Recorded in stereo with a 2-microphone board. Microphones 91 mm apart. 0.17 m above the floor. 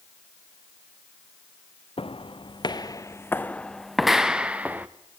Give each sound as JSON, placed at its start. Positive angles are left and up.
{"t": 2.0, "sound": "footsteps", "side_deg": 70, "distance_m": 1.1}